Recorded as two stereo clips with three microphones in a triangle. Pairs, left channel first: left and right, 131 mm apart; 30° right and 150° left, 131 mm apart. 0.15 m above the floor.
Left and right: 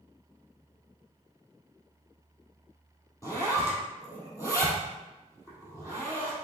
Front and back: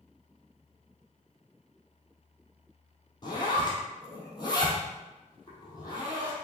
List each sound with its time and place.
3.2 s a zipper: 25° left, 2.5 m